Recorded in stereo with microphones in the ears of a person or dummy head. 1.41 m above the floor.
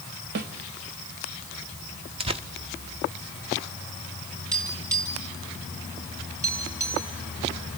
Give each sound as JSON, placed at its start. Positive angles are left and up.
{"t": 0.3, "sound": "a snare drum", "side_deg": -45, "distance_m": 1.0}
{"t": 2.2, "sound": "tearing paper", "side_deg": -25, "distance_m": 0.9}
{"t": 4.5, "sound": "tapping", "side_deg": -15, "distance_m": 7.5}